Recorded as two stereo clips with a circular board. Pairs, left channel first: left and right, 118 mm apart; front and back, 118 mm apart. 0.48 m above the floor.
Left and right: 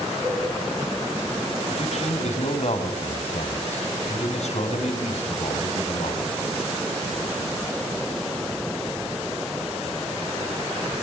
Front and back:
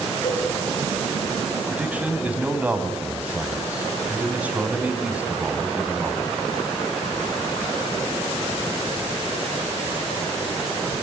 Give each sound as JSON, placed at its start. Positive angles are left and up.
{"t": 0.2, "sound": "a cowbell", "azimuth_deg": -15, "distance_m": 4.5}
{"t": 1.7, "sound": "a man speaking", "azimuth_deg": 105, "distance_m": 3.5}